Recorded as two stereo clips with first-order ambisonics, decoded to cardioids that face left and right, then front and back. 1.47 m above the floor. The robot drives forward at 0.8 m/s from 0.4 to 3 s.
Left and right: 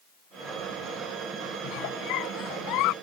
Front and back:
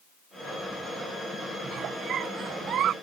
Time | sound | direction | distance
1.6 | a giggle | 120° left | ?